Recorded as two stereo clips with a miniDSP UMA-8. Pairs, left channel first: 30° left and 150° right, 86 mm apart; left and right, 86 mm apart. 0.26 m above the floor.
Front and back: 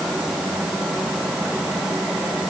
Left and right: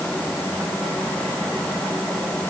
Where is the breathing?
I don't hear breathing.